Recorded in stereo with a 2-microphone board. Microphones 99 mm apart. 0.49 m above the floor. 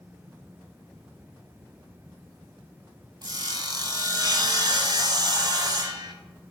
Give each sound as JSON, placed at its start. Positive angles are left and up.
{"t": 3.2, "sound": "sawing", "side_deg": -45, "distance_m": 0.7}